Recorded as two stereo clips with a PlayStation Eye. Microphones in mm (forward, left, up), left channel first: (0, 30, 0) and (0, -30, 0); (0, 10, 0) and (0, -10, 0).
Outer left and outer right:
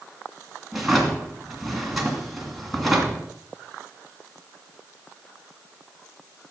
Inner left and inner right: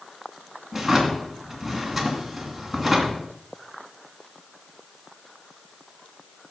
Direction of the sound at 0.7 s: Centre (ahead or behind).